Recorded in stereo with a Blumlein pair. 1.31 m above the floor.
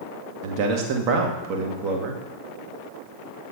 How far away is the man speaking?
About 1.5 m.